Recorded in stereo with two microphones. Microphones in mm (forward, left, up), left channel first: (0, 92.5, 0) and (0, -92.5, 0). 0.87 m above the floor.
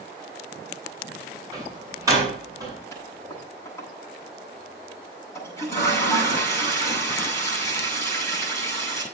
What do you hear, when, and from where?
1.5 s a door slam: 20° right (ahead or behind), 7.5 m
2.9 s a toilet flushing: 15° left (ahead or behind), 9.5 m